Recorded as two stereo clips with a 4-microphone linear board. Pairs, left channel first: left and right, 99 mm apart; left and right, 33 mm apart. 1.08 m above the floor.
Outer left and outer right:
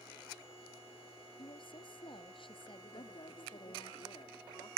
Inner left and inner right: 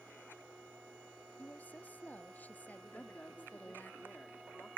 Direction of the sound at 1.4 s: 55° left (ahead or behind).